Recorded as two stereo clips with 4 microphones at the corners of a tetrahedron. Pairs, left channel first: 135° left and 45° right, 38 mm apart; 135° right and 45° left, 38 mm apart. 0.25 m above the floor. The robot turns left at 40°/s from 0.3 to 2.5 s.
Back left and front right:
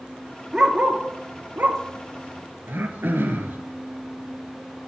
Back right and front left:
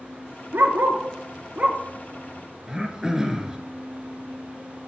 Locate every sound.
0.5 s a dog barking: 30° left, 0.8 m; by 1.8 s 20° right, 0.8 m
2.7 s throat clearing: 30° right, 1.0 m